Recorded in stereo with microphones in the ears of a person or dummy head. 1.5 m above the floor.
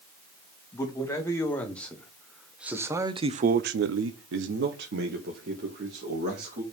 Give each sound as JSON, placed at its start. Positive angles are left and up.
{"t": 0.7, "sound": "a man speaking", "side_deg": 15, "distance_m": 2.5}